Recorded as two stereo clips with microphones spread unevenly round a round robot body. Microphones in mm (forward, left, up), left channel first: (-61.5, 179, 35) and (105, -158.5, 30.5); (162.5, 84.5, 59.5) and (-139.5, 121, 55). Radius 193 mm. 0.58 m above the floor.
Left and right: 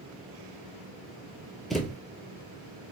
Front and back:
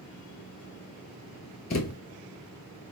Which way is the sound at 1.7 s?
30° left.